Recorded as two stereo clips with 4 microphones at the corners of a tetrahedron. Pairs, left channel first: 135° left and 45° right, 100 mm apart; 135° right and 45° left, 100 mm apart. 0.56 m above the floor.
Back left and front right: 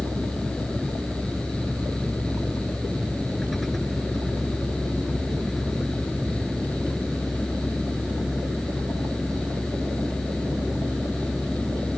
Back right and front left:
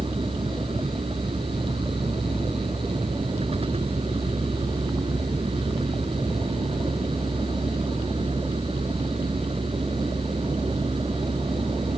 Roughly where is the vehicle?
Ahead left.